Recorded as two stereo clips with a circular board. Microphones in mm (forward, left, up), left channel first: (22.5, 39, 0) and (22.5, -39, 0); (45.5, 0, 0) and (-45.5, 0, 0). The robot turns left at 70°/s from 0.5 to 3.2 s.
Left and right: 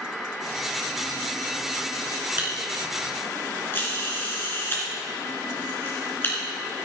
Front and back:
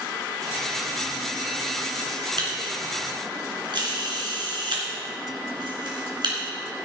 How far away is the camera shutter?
About 3 m.